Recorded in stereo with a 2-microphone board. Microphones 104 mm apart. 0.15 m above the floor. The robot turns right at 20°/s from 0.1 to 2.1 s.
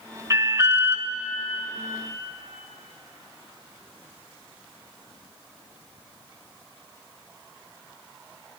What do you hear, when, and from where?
0.3 s an alarm: 35° right (ahead or behind), 0.9 m; by 1.1 s 25° right (ahead or behind), 0.9 m